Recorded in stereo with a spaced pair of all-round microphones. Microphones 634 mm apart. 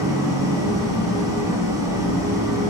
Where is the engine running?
5° right (ahead or behind), 3.5 m.